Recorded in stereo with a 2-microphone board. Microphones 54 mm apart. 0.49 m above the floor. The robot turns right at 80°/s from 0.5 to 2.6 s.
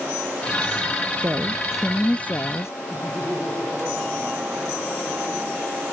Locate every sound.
1.2 s a woman speaking: 50° right; by 2.7 s 60° left
2.9 s laughter: 30° right (ahead or behind)